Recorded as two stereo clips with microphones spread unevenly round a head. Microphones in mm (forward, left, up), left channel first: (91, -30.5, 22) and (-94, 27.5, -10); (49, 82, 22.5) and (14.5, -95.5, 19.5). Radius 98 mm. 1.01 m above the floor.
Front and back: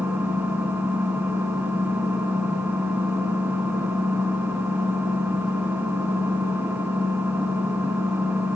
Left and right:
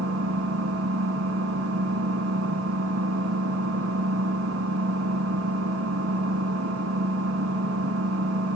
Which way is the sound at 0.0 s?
115° right.